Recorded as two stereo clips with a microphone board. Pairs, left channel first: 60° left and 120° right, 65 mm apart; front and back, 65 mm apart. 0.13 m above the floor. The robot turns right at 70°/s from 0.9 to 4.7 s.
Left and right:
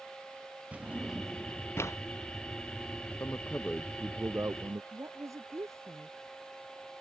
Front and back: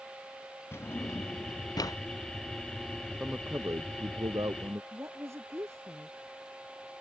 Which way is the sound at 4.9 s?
145° right.